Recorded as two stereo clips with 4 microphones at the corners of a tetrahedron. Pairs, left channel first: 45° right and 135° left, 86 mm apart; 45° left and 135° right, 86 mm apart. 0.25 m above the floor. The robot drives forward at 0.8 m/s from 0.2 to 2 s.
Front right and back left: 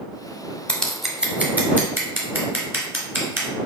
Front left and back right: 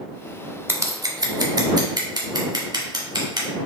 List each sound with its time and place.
0.7 s scissors: 100° right, 0.6 m; by 3.5 s 165° right, 1.3 m